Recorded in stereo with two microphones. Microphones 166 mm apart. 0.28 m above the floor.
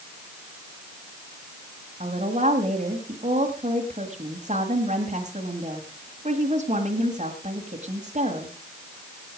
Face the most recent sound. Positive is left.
turn(degrees=-45)  # may be behind; listen again after turning